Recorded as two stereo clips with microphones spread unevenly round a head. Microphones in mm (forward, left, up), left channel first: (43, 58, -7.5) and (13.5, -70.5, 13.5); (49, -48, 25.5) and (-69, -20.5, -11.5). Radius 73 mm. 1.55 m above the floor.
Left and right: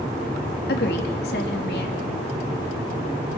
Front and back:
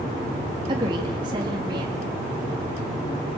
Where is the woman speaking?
105° left, 3 m.